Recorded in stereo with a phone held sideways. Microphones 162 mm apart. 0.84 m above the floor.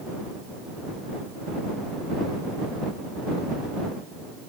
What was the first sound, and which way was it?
Only background noise.